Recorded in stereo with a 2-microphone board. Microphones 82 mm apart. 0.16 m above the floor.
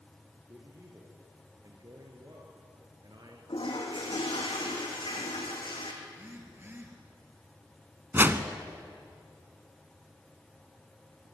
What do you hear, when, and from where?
0.5 s a man speaking: 35° right (ahead or behind), 4.5 m; by 3.4 s 55° right (ahead or behind), 3 m
3.5 s a toilet flushing: 85° left, 4 m
6.0 s a phone buzzing: 25° right (ahead or behind), 3.5 m
8.1 s a whoosh: 25° right (ahead or behind), 1.2 m